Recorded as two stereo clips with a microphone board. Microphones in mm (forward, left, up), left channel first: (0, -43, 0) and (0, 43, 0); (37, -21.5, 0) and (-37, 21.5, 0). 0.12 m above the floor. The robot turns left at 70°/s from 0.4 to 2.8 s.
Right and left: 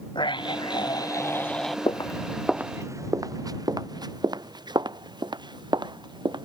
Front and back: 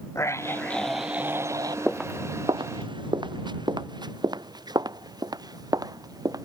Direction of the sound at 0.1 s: 85° right.